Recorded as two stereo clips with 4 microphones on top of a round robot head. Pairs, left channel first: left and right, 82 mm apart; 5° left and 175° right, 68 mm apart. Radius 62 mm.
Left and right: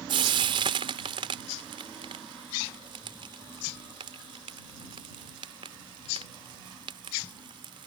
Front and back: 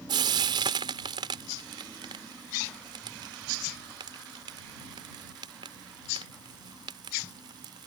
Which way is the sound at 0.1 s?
135° right.